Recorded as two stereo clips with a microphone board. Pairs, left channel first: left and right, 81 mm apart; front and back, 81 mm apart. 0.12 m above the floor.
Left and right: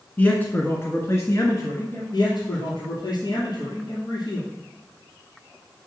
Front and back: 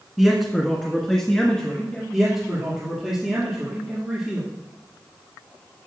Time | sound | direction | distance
0.2 | a man speaking | 100° left | 1.2 m
2.1 | a man speaking | 90° left | 2.5 m